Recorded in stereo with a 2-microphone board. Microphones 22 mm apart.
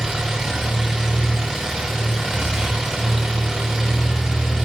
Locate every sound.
0.0 s an engine running: 25° right (ahead or behind), 8.5 m